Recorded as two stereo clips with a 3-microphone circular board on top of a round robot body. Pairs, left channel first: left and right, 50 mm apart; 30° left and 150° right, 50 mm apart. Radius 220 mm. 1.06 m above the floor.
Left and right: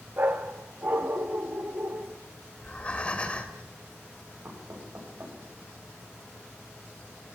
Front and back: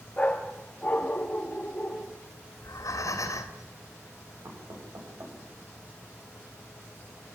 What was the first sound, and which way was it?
A dog barking, 35° right.